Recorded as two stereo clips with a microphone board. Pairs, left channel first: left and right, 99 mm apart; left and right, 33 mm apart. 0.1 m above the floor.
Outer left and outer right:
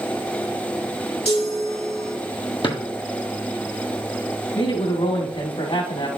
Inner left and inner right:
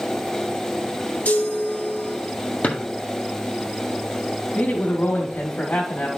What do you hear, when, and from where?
1.2 s a chime: 65° left (ahead or behind), 3 m
2.6 s a drawer: 55° left (ahead or behind), 1.8 m
4.5 s a man speaking: 70° left (ahead or behind), 3.5 m